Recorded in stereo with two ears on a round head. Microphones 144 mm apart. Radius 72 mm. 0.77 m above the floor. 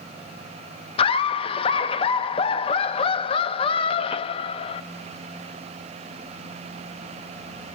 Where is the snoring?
I don't hear snoring.